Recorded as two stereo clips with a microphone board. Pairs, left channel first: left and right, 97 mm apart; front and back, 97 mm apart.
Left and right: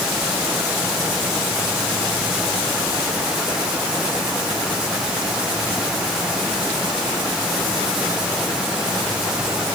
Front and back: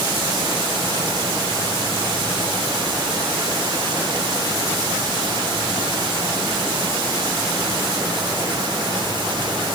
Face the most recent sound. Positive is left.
No sound to turn to.